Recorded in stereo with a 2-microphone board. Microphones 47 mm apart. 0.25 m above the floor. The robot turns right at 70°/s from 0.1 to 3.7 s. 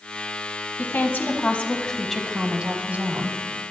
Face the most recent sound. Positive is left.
turn(degrees=-75)